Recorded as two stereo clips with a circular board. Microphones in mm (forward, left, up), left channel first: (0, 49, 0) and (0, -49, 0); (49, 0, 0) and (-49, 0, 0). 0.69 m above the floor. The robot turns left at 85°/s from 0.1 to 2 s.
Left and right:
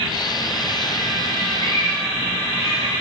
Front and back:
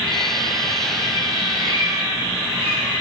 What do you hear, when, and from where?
1.6 s a cat meowing: 155° left, 7.5 m; by 2.9 s 120° left, 7.5 m